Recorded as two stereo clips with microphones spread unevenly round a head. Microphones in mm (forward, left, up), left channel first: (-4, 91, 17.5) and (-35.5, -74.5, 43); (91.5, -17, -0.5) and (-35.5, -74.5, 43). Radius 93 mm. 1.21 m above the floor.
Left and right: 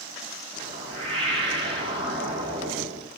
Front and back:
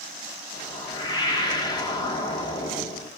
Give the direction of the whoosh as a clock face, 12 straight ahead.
1 o'clock.